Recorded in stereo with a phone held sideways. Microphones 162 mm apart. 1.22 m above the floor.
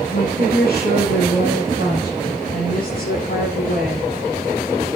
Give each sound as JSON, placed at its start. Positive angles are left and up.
{"t": 0.1, "sound": "a woman speaking", "side_deg": 80, "distance_m": 10.0}